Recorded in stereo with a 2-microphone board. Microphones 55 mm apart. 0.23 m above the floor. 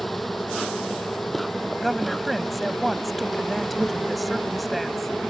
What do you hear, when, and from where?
0.0 s an insect: centre (ahead or behind)
1.8 s a woman speaking: centre (ahead or behind)